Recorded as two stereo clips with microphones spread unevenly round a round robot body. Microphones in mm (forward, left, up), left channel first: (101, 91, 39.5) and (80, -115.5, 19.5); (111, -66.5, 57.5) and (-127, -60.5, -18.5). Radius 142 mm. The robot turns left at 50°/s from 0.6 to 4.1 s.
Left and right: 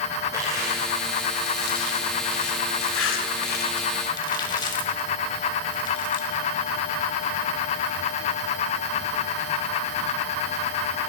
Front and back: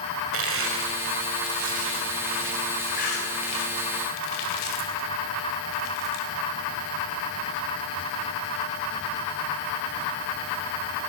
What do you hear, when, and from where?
0.3 s crushing: 175° right, 3 m; by 6.3 s 10° left, 3 m